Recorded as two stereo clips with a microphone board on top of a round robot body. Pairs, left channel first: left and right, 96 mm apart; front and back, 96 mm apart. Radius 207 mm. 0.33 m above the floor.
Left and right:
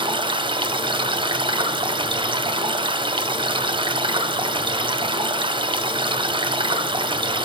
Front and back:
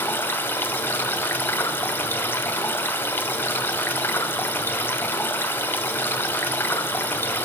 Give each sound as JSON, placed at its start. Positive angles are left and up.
{"t": 0.0, "sound": "running water", "azimuth_deg": -70, "distance_m": 1.6}